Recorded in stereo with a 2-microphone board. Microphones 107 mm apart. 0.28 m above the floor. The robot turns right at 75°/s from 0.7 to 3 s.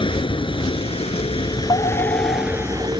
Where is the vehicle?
60° left; by 3.0 s 125° right.